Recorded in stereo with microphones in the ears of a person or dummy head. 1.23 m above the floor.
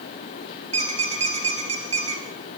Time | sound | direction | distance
0.7 | a squeak | 40° right (ahead or behind) | 3.5 m